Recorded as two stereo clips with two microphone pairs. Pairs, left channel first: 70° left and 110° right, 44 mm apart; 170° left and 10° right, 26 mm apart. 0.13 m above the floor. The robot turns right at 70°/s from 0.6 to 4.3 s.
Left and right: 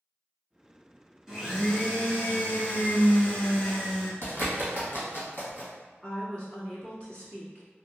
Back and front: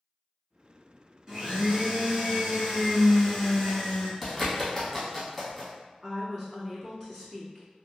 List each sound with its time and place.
1.3 s a blender: 45° right, 1.2 m; by 4.1 s 150° left, 1.2 m
4.2 s a bird: 90° left, 1.7 m; by 5.7 s 95° left, 1.7 m
6.0 s a woman speaking: 90° left, 1.5 m